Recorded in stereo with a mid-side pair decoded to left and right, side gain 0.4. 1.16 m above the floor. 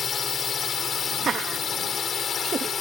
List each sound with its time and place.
0.0 s a drone: 55° left
1.2 s laughter: 55° right